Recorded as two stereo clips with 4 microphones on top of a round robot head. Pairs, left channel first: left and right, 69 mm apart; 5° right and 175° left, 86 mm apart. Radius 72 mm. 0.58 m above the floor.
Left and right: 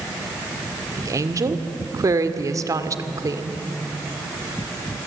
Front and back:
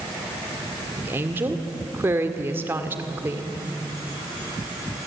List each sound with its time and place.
1.0 s a woman speaking: 120° right, 2 m